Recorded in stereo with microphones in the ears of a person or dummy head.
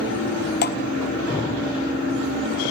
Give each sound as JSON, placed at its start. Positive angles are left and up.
{"t": 0.6, "sound": "dripping", "side_deg": 50, "distance_m": 1.4}